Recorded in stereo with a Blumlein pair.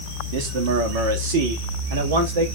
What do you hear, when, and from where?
0.3 s a man speaking: 50° right, 2.5 m; by 2.5 s 65° right, 3 m